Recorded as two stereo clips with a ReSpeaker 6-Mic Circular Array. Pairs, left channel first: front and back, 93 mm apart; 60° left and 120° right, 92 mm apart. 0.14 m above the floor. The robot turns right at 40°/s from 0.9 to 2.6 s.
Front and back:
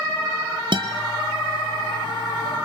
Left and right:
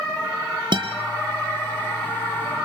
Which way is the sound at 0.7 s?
150° right.